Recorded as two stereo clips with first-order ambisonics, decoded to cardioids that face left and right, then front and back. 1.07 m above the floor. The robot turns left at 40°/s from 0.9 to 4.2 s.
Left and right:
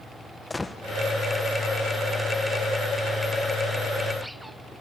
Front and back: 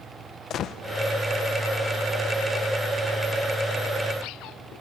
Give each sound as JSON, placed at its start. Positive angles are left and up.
{"t": 0.5, "sound": "a gunshot", "azimuth_deg": 15, "distance_m": 0.7}